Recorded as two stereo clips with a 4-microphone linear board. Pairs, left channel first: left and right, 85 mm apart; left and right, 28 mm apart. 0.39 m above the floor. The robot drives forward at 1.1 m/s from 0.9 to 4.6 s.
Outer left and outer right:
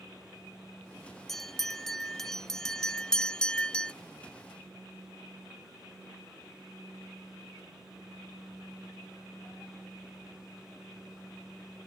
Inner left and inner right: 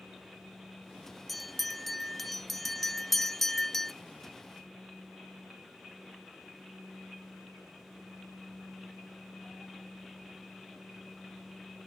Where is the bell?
5° left (ahead or behind); by 3.9 s 10° left (ahead or behind).